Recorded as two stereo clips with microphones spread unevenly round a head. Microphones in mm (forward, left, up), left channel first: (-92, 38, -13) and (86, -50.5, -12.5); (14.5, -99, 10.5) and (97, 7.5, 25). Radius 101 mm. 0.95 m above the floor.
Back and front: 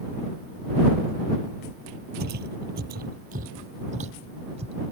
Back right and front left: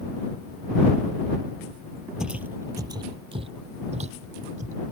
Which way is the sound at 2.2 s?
25° right.